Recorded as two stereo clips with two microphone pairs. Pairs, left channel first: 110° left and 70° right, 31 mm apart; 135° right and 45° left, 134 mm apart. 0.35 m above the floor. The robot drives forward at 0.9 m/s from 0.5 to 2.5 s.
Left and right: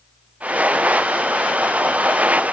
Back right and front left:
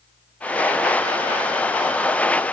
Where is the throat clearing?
No throat clearing in this recording.